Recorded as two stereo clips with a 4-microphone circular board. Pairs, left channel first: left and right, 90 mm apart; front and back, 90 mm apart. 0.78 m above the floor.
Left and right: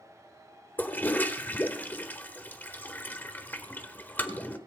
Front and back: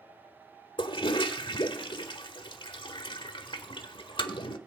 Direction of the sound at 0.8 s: 20° left.